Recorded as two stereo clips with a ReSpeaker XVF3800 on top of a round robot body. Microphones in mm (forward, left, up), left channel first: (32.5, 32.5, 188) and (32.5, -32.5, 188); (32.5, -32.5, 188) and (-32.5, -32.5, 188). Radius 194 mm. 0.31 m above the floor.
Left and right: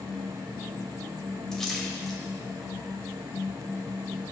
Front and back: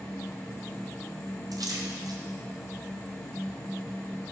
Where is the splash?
170° left, 2.5 m.